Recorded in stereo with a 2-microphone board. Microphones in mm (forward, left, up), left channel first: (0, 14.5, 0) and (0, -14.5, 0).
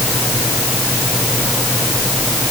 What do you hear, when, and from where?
Only background noise.